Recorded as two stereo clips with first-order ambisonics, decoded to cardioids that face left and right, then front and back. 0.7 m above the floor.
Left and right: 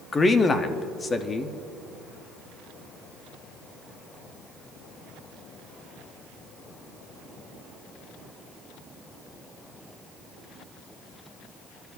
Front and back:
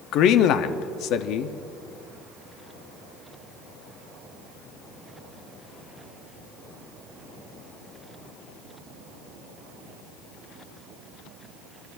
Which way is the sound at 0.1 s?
20° left.